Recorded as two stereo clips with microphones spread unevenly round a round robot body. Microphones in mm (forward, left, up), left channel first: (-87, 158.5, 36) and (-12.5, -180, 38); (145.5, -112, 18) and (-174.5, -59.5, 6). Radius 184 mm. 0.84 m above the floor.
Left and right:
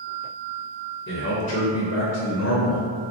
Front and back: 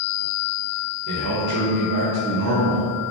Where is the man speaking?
155° left, 1.0 m.